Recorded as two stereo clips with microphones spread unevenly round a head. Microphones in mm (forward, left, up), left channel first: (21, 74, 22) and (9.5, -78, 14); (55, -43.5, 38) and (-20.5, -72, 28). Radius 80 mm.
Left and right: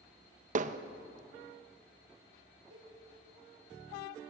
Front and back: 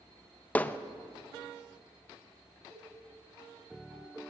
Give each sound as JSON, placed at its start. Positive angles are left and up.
{"t": 0.6, "sound": "hammering", "azimuth_deg": -55, "distance_m": 0.6}
{"t": 2.7, "sound": "a cowbell", "azimuth_deg": -105, "distance_m": 6.5}